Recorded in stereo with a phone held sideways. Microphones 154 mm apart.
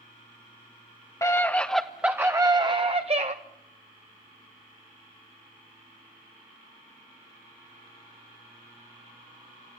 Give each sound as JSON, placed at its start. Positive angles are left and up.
{"t": 1.2, "sound": "a scream", "side_deg": 20, "distance_m": 1.0}